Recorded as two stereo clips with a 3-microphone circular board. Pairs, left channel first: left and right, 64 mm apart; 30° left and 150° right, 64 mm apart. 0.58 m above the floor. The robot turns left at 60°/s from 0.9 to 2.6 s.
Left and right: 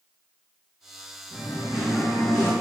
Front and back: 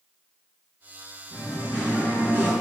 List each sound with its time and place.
1.3 s singing: 135° right, 1.9 m; by 2.5 s 150° left, 1.9 m